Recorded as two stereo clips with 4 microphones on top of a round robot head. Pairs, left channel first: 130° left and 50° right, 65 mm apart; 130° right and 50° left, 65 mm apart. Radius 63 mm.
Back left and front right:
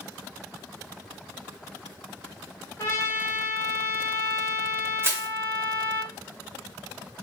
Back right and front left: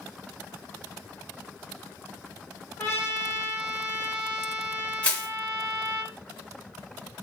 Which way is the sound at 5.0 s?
70° right.